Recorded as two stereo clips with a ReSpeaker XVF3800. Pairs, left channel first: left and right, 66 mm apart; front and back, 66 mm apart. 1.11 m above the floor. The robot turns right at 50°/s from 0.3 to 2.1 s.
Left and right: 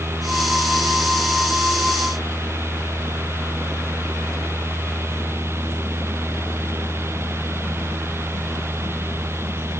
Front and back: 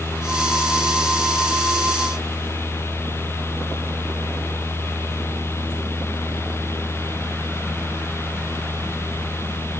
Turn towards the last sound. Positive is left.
No sound to turn to.